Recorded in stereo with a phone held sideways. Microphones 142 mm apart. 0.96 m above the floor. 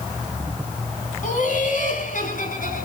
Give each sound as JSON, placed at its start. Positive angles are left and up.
{"t": 1.2, "sound": "laughter", "side_deg": 70, "distance_m": 7.5}